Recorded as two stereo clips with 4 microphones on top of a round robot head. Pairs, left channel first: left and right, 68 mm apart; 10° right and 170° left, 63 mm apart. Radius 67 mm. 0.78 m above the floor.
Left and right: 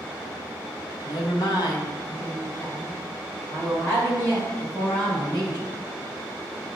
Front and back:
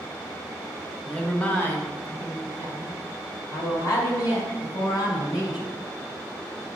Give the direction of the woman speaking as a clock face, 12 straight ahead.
10 o'clock.